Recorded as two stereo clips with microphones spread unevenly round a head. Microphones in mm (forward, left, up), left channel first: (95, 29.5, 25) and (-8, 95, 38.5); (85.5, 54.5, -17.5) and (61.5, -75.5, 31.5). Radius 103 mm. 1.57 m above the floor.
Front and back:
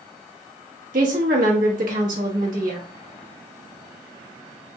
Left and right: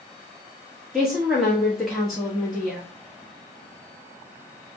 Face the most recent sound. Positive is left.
turn(degrees=170)